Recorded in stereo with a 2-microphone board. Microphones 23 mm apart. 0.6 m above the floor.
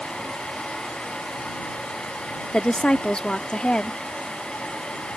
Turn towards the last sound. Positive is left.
turn(degrees=40)  # may be behind; listen again after turning